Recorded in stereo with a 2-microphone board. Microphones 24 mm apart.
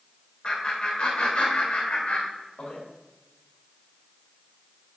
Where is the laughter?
45° left (ahead or behind), 3.5 m; by 2.8 s 70° left (ahead or behind), 4 m.